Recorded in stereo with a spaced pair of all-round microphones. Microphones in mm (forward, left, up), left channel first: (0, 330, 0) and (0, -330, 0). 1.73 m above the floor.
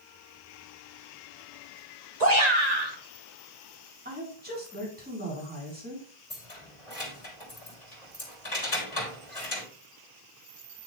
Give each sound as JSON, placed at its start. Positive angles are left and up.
{"t": 2.2, "sound": "a shout", "side_deg": -70, "distance_m": 2.0}
{"t": 4.0, "sound": "a woman speaking", "side_deg": -15, "distance_m": 4.5}
{"t": 6.3, "sound": "keys jangling", "side_deg": 50, "distance_m": 3.0}